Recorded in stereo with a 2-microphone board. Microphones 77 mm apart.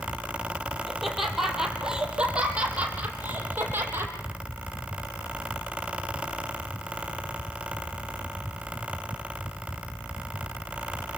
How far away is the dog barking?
I don't hear a dog barking.